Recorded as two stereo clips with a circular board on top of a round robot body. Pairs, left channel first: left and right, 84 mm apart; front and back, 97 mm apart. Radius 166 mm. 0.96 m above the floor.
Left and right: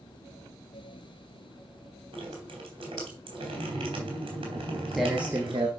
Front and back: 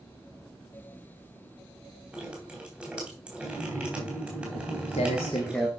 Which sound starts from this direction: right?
Dripping, at 2.1 s.